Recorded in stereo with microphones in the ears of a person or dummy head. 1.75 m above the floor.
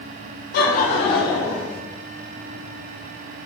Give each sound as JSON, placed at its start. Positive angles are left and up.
{"t": 0.5, "sound": "laughter", "side_deg": 60, "distance_m": 0.5}